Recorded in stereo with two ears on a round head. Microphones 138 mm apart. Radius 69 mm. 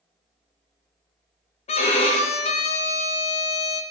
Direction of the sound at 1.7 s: 40° left (ahead or behind).